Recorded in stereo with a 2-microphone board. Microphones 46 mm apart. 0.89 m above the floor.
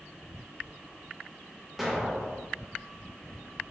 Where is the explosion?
5° right (ahead or behind), 0.6 m.